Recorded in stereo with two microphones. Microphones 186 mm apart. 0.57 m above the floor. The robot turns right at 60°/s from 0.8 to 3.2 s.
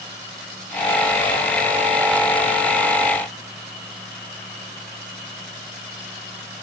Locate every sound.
Only background noise.